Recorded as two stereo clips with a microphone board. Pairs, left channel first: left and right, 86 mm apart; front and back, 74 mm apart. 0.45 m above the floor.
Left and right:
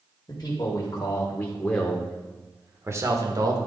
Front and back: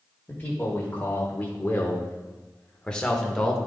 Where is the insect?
No insect in this recording.